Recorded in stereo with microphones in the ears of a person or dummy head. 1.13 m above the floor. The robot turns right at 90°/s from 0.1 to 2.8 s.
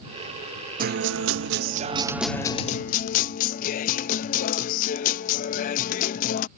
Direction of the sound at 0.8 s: 135° right.